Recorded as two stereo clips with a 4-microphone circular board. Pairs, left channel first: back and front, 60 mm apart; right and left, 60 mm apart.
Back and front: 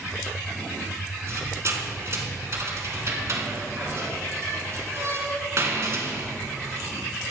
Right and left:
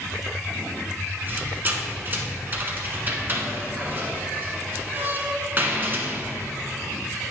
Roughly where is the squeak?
Ahead left.